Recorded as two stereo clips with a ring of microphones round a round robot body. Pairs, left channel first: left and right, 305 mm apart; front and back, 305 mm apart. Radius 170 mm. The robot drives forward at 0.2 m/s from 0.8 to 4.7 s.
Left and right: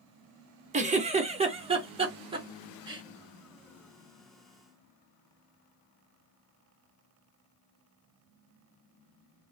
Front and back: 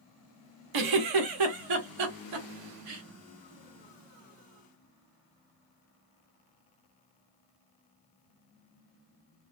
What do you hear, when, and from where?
0.7 s a giggle: 160° right, 0.7 m; by 3.0 s 165° right, 1.1 m